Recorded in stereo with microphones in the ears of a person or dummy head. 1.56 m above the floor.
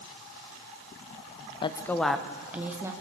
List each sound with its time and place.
1.6 s a woman speaking: 20° left (ahead or behind), 0.7 m; by 2.9 s 20° right (ahead or behind), 1.8 m